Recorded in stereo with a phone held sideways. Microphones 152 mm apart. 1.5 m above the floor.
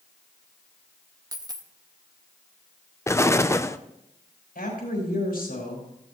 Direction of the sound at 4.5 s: 75° left (ahead or behind).